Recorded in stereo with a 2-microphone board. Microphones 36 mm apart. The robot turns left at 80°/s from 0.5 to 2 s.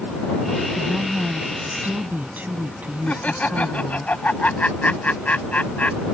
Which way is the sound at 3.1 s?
45° left (ahead or behind).